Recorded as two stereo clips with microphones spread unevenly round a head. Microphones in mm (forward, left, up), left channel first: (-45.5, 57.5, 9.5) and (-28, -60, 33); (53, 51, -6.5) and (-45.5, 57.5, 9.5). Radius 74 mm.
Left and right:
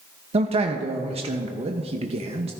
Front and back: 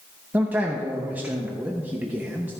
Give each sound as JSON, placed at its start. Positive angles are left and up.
{"t": 0.3, "sound": "a man speaking", "azimuth_deg": -105, "distance_m": 0.7}